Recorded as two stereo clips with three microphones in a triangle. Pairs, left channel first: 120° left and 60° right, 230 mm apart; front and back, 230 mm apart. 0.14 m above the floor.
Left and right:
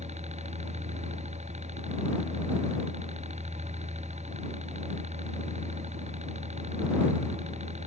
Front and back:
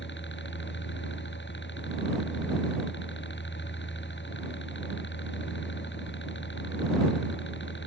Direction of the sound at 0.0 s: 10° right.